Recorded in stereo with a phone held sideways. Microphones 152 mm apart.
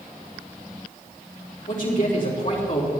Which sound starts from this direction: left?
A man speaking, at 1.7 s.